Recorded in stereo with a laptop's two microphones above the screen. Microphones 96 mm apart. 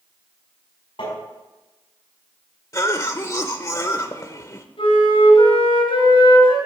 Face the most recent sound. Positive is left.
turn(degrees=70)  # may be behind; listen again after turning